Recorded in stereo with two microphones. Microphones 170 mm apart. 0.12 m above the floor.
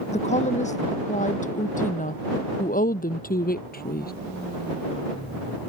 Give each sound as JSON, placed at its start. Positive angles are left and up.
{"t": 0.1, "sound": "a woman speaking", "side_deg": 40}